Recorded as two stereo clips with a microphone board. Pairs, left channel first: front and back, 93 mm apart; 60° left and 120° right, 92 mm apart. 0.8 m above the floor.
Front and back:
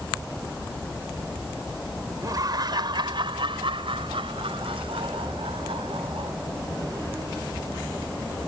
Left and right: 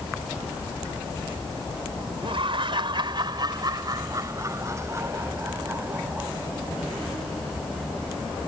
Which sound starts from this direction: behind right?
Laughter, at 2.2 s.